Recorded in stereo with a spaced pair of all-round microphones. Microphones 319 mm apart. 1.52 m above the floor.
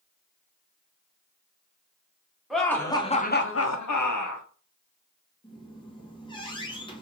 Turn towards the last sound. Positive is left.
turn(degrees=15)  # may be behind; listen again after turning